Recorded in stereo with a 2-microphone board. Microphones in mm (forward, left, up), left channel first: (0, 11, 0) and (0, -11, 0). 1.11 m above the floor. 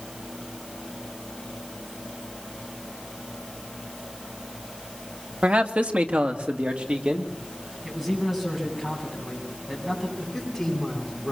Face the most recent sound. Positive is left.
turn(degrees=0)  # may be behind; listen again after turning